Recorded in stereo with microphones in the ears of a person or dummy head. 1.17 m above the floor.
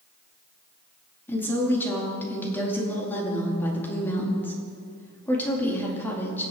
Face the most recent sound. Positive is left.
turn(degrees=10)  # may be behind; listen again after turning